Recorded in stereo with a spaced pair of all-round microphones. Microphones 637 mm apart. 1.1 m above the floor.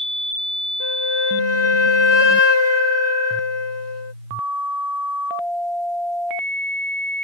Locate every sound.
0.8 s a flute: 25° right (ahead or behind)